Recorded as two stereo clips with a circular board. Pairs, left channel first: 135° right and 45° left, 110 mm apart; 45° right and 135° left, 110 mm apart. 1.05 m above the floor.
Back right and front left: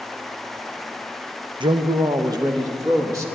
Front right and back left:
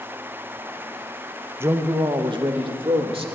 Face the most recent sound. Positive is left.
turn(degrees=105)